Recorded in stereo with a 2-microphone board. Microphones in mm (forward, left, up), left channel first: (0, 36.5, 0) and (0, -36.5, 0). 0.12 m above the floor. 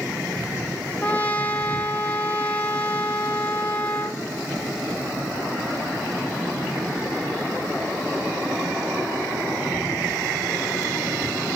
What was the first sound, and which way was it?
A trumpet, 20° left (ahead or behind).